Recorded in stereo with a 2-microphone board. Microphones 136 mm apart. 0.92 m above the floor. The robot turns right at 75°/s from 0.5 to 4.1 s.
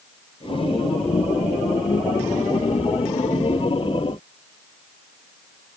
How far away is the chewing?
I don't hear chewing.